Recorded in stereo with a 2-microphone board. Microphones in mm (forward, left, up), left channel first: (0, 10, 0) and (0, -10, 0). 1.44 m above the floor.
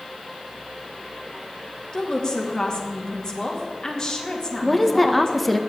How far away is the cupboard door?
No cupboard door in this recording.